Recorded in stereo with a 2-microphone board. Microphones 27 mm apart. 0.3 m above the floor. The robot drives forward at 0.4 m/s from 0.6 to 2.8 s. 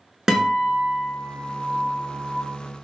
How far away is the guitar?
About 0.6 m.